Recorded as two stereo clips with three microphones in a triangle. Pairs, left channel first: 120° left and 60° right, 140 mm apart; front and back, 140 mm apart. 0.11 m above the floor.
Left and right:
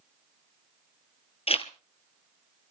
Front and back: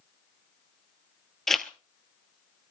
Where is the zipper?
90° left, 1.2 m.